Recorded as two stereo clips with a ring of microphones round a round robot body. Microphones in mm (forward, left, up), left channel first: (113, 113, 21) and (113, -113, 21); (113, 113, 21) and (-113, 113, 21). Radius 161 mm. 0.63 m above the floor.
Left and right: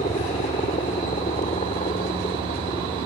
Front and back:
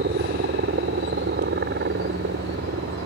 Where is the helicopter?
155° left; by 3.1 s 160° left.